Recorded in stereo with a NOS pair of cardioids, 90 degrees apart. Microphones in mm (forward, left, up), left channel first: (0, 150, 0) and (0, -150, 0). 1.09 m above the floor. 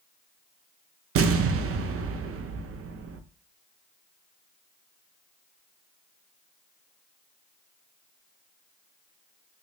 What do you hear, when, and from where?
1.1 s an explosion: 50° right, 0.5 m